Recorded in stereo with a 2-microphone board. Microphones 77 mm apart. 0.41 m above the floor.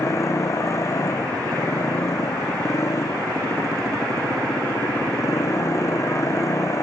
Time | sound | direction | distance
0.0 | a motorcycle | 40° left (ahead or behind) | ?